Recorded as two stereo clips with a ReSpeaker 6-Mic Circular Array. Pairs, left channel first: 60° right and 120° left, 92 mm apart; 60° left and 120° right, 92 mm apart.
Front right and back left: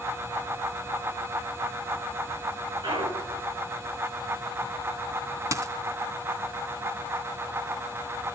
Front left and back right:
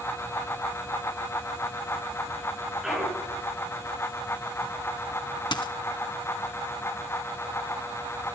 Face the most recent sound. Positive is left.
turn(degrees=75)